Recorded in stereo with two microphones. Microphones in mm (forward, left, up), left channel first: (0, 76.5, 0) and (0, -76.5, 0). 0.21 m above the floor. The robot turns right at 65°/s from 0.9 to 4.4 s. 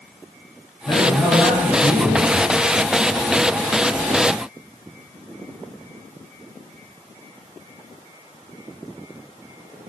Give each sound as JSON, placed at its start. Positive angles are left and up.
{"t": 0.9, "sound": "a man speaking", "side_deg": 20, "distance_m": 1.0}